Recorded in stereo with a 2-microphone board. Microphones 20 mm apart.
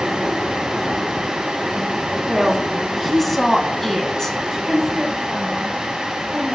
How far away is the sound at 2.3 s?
About 2 m.